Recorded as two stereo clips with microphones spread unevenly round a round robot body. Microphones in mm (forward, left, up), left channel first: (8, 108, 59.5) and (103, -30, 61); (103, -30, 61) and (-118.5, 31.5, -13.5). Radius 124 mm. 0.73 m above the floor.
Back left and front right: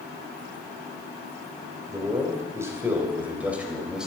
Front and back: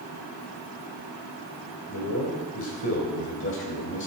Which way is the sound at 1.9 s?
15° left.